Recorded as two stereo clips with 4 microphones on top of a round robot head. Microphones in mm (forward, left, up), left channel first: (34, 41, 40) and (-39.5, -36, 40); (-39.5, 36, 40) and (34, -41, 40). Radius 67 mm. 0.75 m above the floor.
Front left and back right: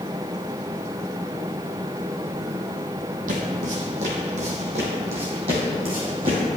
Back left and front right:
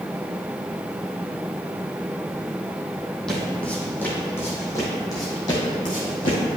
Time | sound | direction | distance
3.3 | footsteps | 140° right | 2.0 m